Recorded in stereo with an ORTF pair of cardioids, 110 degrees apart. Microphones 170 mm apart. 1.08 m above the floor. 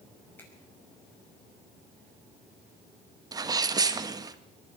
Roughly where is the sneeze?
Ahead right.